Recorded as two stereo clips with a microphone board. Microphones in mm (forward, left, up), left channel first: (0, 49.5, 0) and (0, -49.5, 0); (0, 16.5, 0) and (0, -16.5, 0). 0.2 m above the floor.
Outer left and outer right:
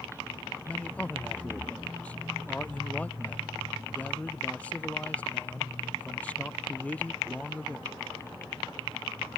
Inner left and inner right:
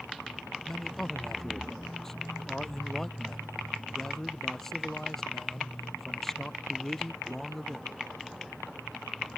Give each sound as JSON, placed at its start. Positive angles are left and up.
{"t": 0.7, "sound": "a man speaking", "side_deg": 15}